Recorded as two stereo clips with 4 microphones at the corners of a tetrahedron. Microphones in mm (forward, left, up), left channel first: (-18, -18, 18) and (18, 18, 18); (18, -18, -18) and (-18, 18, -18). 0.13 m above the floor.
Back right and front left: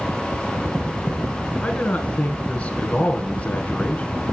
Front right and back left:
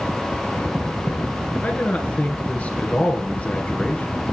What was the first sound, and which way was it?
A man speaking, 90° right.